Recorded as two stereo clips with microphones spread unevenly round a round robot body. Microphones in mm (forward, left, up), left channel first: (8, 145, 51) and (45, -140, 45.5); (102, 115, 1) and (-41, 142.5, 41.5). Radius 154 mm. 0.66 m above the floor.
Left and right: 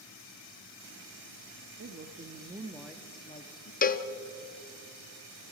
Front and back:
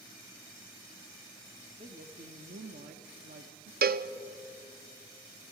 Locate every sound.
1.8 s a woman speaking: 125° right, 1.3 m; by 3.7 s 150° left, 1.3 m
3.8 s a cowbell: 155° left, 0.8 m